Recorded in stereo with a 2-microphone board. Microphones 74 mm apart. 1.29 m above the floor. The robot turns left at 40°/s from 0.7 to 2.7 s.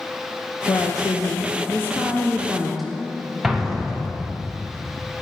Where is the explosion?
5° right (ahead or behind), 0.8 m.